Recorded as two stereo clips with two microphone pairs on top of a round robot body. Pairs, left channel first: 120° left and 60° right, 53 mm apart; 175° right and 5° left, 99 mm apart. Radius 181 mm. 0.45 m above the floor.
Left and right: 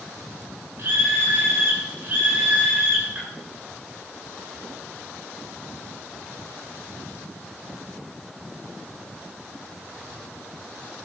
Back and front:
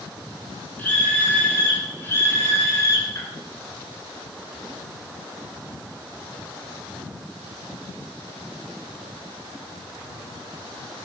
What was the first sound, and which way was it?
A scream, 105° right.